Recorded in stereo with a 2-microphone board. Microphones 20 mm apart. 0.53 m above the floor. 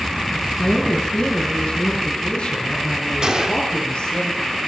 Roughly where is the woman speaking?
Left.